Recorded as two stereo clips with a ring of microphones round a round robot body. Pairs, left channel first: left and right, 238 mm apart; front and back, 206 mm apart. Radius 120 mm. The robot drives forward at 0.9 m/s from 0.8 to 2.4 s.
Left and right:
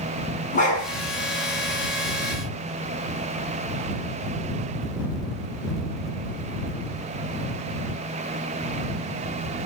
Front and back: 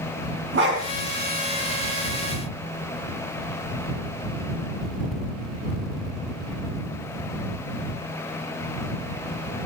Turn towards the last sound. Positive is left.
turn(degrees=160)